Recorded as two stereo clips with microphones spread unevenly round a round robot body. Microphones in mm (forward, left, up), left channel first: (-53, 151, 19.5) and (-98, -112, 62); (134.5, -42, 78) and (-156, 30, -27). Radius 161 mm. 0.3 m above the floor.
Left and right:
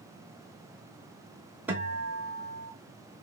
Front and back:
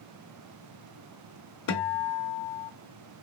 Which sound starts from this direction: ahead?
A guitar, at 1.7 s.